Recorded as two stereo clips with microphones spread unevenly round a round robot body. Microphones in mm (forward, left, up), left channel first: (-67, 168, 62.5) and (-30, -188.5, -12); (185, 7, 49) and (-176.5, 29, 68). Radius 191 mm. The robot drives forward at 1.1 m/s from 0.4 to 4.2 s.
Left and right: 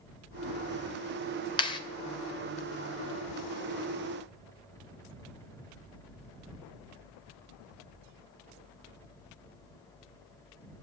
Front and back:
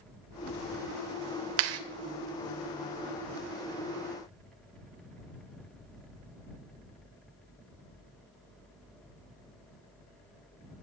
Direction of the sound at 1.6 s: 175° left.